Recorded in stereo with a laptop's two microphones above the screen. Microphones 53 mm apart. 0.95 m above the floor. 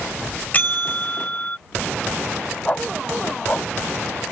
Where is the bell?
30° left (ahead or behind).